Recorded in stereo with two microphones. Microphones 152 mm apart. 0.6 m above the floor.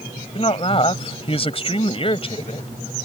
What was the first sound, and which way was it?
A woman speaking, 40° left (ahead or behind).